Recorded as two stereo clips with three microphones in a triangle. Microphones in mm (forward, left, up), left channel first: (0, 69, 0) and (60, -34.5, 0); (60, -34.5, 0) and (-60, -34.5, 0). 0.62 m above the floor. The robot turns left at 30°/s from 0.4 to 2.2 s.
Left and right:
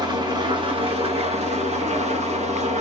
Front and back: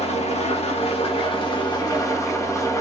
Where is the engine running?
10° right, 1.3 m; by 2.8 s 65° right, 1.3 m.